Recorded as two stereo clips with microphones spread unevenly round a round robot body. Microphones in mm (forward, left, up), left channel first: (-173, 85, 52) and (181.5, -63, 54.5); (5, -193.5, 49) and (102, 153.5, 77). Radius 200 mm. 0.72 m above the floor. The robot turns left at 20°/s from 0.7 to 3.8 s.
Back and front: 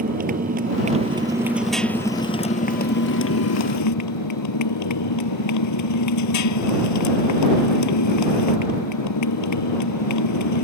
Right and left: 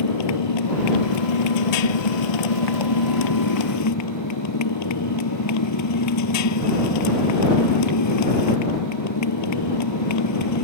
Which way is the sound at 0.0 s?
90° right.